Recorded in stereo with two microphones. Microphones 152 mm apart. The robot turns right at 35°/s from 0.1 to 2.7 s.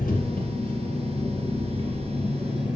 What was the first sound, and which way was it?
An engine running, 100° left.